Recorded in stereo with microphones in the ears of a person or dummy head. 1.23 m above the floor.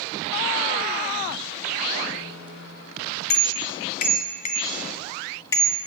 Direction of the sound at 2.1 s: 70° left (ahead or behind).